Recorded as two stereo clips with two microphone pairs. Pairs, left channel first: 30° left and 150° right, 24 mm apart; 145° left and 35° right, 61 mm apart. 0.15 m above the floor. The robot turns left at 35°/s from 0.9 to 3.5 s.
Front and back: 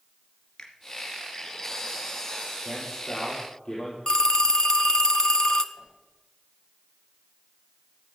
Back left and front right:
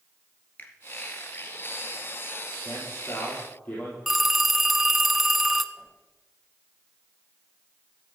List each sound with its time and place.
0.6 s a finger snap: 85° left, 2 m
2.6 s a man speaking: 110° left, 5.5 m; by 4.0 s 80° left, 5.5 m
4.1 s a phone ringing: 55° left, 0.7 m
5.8 s a whoosh: 100° left, 8.5 m